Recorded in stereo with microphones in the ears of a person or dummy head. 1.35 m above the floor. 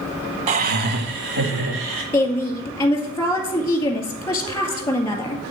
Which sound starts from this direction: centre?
A woman speaking, at 2.1 s.